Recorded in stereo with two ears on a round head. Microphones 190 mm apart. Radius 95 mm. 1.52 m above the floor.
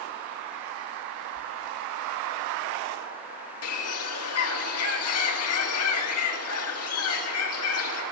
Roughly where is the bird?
Left.